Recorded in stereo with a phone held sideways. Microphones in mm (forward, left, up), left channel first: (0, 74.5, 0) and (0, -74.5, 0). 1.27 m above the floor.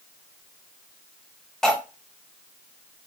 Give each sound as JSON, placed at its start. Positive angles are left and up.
{"t": 1.6, "sound": "cutlery clinking", "side_deg": 5, "distance_m": 0.5}